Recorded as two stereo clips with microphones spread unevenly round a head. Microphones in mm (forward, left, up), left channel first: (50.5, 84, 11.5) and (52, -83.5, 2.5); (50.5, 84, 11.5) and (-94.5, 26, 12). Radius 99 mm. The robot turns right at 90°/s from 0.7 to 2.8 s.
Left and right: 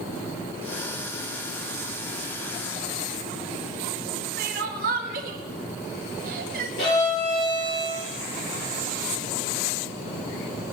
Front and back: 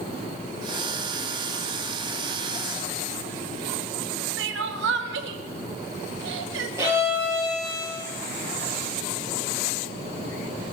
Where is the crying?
140° right, 1.0 m.